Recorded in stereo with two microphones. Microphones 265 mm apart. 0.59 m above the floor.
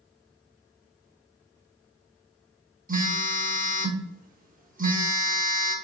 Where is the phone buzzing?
35° right (ahead or behind), 0.6 m.